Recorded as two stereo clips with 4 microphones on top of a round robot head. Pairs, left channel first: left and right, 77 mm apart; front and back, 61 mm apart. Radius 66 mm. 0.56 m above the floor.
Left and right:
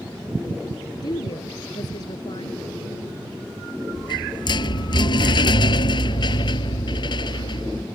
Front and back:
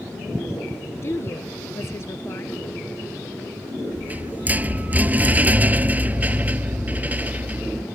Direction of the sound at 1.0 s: 45° left.